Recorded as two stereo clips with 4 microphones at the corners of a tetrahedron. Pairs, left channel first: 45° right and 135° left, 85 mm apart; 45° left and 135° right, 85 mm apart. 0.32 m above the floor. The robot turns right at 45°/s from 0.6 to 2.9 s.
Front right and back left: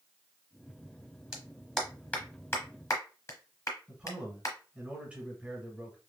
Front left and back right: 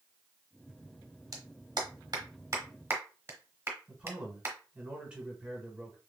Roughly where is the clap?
Behind right.